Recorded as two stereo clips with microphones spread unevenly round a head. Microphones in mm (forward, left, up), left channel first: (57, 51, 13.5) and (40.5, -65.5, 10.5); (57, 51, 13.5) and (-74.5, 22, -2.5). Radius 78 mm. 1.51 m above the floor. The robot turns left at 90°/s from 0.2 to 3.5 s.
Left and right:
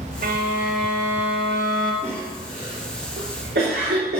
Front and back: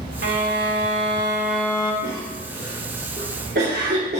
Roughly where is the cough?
Ahead.